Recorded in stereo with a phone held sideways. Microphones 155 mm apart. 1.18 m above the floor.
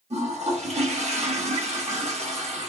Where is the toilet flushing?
45° right (ahead or behind), 1.2 m.